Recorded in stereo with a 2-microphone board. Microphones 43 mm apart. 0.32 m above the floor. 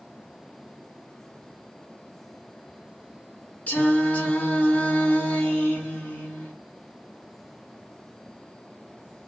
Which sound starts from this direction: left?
Singing, at 3.7 s.